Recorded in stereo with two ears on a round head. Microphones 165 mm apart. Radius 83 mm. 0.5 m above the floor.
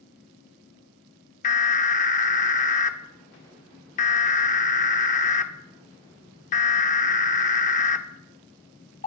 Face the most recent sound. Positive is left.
turn(degrees=40)  # may be behind; listen again after turning